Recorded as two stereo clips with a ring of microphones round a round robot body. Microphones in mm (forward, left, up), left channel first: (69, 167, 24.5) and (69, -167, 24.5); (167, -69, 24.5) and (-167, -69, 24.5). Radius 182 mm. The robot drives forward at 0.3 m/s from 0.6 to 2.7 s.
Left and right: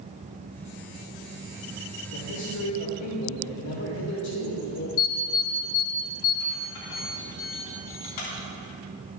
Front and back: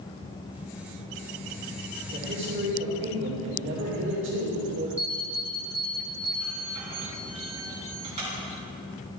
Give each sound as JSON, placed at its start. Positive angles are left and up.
{"t": 2.1, "sound": "a man speaking", "azimuth_deg": 125, "distance_m": 3.0}
{"t": 5.0, "sound": "an alarm", "azimuth_deg": 105, "distance_m": 3.0}